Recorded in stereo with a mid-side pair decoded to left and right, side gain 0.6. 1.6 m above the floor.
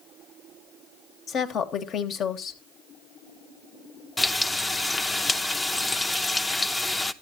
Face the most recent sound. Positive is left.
turn(degrees=15)